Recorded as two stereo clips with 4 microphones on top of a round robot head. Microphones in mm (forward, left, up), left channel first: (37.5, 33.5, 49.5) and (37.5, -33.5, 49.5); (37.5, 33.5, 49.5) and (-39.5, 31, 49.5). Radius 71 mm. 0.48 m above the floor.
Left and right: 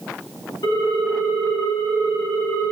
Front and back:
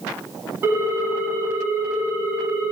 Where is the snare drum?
I don't hear a snare drum.